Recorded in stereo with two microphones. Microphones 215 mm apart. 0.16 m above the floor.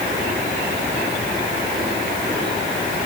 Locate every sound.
Only background noise.